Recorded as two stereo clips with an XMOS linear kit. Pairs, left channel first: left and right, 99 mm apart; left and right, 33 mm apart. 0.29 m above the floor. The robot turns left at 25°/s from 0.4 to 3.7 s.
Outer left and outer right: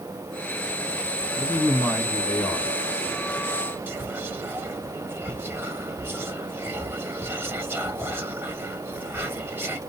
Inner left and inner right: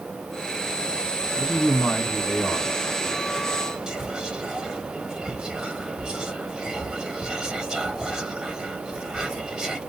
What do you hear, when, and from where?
1.4 s a man speaking: 50° left, 1.9 m; by 2.7 s 15° left, 1.9 m
3.9 s whispering: 20° right (ahead or behind), 1.2 m